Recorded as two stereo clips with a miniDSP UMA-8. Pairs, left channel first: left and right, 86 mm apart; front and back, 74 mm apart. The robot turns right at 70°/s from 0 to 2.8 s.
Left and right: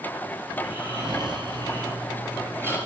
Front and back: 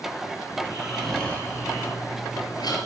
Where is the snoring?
125° right, 4 m; by 2.8 s 30° left, 4 m.